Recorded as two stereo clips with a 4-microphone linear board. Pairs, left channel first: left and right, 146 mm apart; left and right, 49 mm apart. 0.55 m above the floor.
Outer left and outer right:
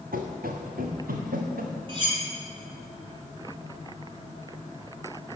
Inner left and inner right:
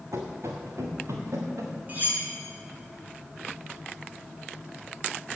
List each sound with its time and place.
0.1 s running footsteps: 75° right (ahead or behind), 2 m
1.9 s cutlery clinking: 35° right (ahead or behind), 2.5 m